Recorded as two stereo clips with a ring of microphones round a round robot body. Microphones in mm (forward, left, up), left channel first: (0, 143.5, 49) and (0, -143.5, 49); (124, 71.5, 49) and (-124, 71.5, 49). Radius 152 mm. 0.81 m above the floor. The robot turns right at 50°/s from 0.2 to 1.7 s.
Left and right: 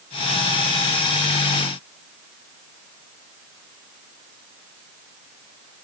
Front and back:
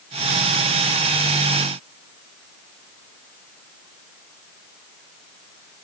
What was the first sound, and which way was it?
Only background noise.